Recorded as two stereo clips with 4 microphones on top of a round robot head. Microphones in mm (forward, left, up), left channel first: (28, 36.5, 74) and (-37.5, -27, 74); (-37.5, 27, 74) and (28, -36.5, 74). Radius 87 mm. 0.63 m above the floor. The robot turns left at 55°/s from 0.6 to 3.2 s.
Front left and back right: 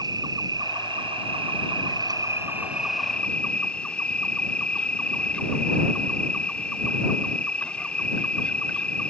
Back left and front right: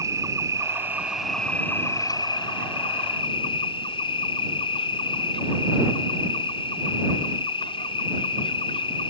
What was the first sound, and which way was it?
An insect, 95° right.